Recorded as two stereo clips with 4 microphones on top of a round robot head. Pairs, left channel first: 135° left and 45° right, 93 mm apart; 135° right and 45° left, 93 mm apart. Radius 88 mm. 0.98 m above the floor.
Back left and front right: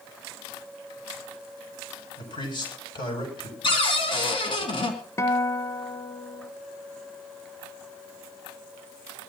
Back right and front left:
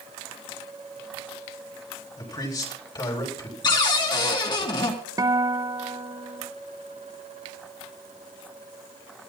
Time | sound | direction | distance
2.2 | a man speaking | 175° left | 7.5 m
3.6 | a cupboard door | 175° left | 3.5 m
5.2 | a guitar | 85° left | 1.1 m